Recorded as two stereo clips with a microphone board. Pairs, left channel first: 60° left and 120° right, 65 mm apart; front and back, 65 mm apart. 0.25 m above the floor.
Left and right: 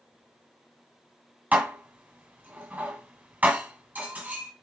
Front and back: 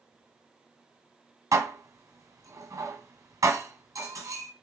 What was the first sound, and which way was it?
Dishes clattering, straight behind.